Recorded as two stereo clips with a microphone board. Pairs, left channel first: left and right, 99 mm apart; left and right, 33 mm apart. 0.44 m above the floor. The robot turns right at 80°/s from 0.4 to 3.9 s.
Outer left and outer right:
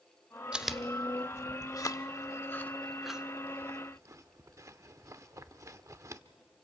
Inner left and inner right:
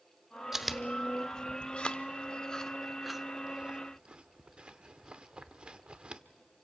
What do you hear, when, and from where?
0.5 s chewing: 10° right (ahead or behind), 0.6 m; by 6.2 s 30° right (ahead or behind), 0.6 m